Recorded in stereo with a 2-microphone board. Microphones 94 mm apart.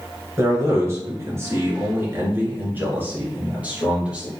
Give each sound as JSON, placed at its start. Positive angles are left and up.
{"t": 0.4, "sound": "a man speaking", "side_deg": -30, "distance_m": 2.0}